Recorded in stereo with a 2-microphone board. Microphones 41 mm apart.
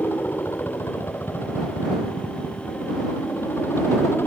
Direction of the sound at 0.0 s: 70° left (ahead or behind).